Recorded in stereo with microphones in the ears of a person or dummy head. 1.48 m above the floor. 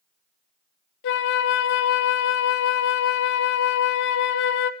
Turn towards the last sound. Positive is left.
turn(degrees=60)  # may be behind; listen again after turning